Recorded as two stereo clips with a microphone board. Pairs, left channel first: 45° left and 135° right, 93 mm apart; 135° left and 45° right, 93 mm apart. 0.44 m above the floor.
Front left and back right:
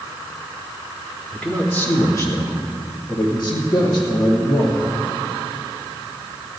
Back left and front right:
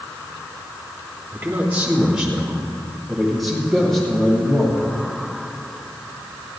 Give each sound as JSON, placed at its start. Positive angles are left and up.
{"t": 1.3, "sound": "a man speaking", "azimuth_deg": -15, "distance_m": 1.2}